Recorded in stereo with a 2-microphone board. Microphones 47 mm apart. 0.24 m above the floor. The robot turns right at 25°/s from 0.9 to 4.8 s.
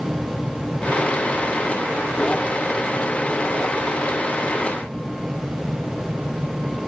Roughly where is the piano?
I don't hear a piano.